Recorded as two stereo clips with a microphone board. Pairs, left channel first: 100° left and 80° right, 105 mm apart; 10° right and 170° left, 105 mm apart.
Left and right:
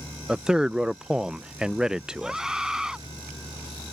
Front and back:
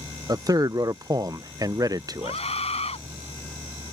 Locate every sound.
0.3 s a man speaking: 160° right
2.2 s a scream: 5° left